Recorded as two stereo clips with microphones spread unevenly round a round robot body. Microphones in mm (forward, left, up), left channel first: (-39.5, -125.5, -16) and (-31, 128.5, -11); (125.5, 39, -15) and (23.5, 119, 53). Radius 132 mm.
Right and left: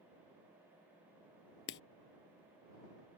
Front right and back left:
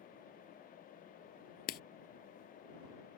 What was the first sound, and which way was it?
Writing, 40° right.